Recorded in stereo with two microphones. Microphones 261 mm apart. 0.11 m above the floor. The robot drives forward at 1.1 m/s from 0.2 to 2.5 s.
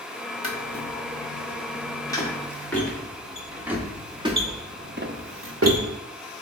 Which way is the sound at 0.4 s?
65° left (ahead or behind).